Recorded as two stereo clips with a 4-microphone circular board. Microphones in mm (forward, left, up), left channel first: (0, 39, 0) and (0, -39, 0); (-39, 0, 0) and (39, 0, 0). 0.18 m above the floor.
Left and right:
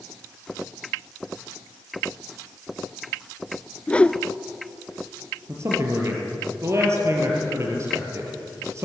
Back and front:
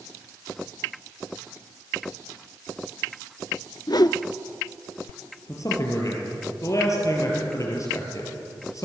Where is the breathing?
No breathing in this recording.